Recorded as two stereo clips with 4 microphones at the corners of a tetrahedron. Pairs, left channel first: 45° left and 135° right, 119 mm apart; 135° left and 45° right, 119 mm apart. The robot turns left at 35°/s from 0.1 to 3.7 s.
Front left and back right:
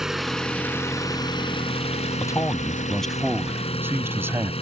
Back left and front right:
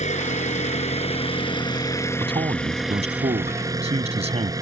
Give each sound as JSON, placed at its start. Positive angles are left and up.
{"t": 0.0, "sound": "an engine running", "azimuth_deg": 140}
{"t": 2.2, "sound": "a man speaking", "azimuth_deg": -10}